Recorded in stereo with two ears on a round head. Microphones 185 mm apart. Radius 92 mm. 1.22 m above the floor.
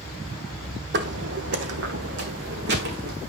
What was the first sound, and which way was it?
Footsteps, 55° right (ahead or behind).